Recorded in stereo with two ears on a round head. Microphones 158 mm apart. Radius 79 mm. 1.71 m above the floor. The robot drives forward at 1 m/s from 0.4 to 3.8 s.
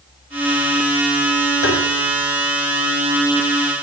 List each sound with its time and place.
1.6 s tapping: 75° left (ahead or behind), 6.5 m